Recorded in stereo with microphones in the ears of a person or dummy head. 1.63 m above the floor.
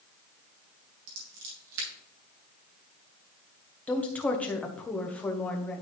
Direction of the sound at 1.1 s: 70° right (ahead or behind).